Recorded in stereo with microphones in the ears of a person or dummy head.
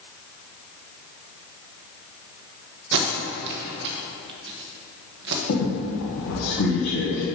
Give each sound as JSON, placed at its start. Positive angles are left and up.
{"t": 2.9, "sound": "tape being pulled", "side_deg": -65, "distance_m": 1.1}
{"t": 5.5, "sound": "a squeak", "side_deg": 50, "distance_m": 2.0}